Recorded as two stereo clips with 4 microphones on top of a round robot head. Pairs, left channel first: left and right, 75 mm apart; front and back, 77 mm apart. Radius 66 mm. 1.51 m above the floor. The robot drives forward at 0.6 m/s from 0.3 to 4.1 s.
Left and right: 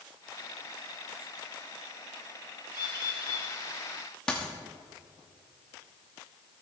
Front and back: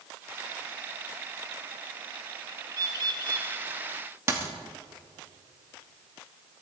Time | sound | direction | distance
2.7 | a bird | 135° left | 1.1 m
4.3 | a dropped coin | 165° left | 1.0 m